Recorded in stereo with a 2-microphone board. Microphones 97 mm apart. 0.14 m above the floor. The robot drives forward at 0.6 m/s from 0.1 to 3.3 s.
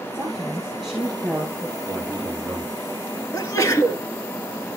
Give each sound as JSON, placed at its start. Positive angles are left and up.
{"t": 0.1, "sound": "a woman speaking", "side_deg": 5, "distance_m": 2.5}
{"t": 1.9, "sound": "a man speaking", "side_deg": 5, "distance_m": 2.5}
{"t": 3.3, "sound": "a sneeze", "side_deg": 30, "distance_m": 1.9}